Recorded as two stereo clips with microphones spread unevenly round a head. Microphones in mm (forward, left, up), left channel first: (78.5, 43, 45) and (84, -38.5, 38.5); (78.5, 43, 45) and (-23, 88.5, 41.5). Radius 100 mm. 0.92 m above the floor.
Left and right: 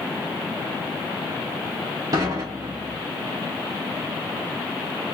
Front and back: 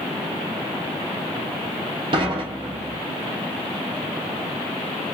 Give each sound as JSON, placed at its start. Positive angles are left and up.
{"t": 2.1, "sound": "dishes clattering", "azimuth_deg": -145, "distance_m": 0.6}